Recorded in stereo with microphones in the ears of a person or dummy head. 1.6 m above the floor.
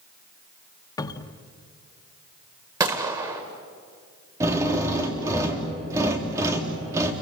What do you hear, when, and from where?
1.0 s a cupboard door: 15° left (ahead or behind), 1.2 m
2.8 s a gunshot: 25° right (ahead or behind), 1.9 m
4.4 s a drill: 20° right (ahead or behind), 3.5 m